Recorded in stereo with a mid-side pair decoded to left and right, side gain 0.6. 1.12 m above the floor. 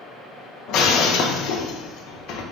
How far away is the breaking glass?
About 0.8 m.